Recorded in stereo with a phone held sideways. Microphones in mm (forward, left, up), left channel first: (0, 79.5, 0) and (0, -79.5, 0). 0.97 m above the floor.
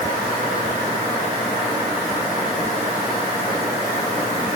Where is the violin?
I don't hear a violin.